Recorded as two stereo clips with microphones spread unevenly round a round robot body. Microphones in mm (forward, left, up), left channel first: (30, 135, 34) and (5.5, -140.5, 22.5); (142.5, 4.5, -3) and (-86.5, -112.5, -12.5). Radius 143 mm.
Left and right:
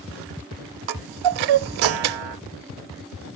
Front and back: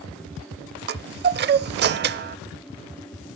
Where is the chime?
100° right, 0.6 m.